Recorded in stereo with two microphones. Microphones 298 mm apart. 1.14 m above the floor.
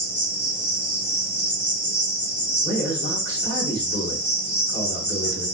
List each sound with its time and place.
0.0 s an insect: 35° left (ahead or behind), 1.1 m
2.6 s a man speaking: 30° left (ahead or behind), 2 m